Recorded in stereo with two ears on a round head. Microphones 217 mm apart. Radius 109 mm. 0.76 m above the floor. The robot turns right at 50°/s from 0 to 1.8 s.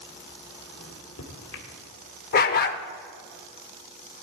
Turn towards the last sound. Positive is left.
turn(degrees=40)  # may be behind; listen again after turning